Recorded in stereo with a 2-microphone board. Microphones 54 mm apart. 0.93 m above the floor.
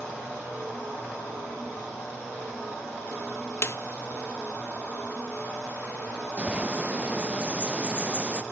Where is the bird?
25° right (ahead or behind), 0.6 m.